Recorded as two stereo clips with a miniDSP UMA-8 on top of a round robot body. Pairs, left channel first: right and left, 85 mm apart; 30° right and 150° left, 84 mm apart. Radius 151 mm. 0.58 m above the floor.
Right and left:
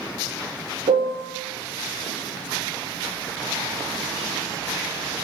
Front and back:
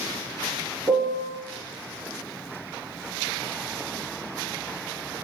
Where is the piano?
90° left, 1.0 m.